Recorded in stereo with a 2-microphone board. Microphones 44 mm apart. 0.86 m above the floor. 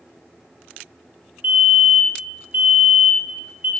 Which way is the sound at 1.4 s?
35° right (ahead or behind).